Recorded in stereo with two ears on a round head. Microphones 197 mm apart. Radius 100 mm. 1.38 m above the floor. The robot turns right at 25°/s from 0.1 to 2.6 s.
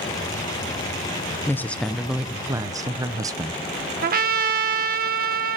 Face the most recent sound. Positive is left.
turn(degrees=-45)  # may be behind; listen again after turning